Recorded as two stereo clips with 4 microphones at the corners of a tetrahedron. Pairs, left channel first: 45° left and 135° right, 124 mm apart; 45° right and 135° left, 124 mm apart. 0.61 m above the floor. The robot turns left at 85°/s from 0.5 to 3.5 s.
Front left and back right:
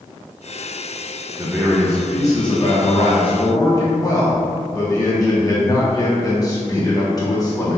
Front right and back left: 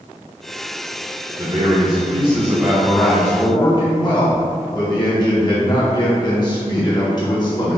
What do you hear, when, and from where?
1.4 s a man speaking: 175° left, 0.9 m; by 7.8 s 5° right, 0.9 m